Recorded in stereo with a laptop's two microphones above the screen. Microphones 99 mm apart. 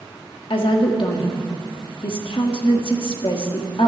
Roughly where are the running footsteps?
No running footsteps in this recording.